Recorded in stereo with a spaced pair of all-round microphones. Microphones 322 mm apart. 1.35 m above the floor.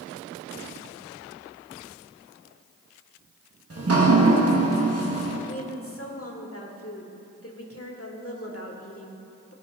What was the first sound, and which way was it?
Dripping, 45° right (ahead or behind).